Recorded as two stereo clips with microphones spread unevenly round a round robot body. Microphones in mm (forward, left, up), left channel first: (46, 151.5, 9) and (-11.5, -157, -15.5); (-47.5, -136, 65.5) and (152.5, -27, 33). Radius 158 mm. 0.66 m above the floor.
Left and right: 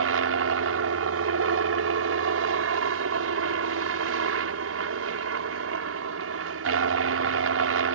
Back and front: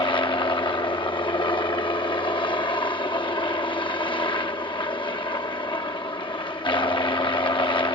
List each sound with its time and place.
0.0 s a helicopter: 85° right